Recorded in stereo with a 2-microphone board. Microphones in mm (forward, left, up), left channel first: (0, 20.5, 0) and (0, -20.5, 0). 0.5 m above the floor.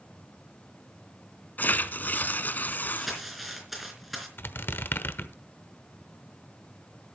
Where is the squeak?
60° left (ahead or behind), 1.0 m.